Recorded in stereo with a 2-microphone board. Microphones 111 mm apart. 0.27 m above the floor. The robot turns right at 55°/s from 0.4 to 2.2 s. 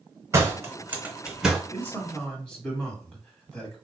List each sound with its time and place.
0.3 s a door slam: 25° right (ahead or behind), 0.7 m; by 1.6 s centre (ahead or behind), 0.7 m
1.7 s a man speaking: 25° left (ahead or behind), 1.4 m; by 3.8 s 5° left (ahead or behind), 1.4 m